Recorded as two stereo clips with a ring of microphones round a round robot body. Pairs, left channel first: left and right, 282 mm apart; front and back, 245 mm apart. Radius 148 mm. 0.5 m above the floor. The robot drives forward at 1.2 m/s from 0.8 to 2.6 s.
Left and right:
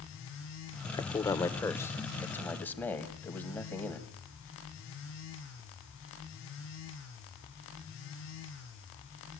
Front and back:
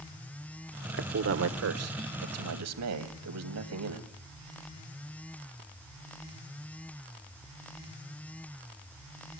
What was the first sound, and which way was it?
A man speaking, 160° left.